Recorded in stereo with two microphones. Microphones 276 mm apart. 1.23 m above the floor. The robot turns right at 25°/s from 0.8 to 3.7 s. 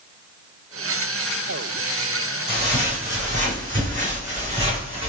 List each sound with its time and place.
2.5 s footsteps: 20° right (ahead or behind), 2 m